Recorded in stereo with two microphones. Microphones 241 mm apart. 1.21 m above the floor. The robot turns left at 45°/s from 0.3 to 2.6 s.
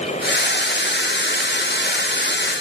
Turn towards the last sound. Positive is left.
No sound to turn to.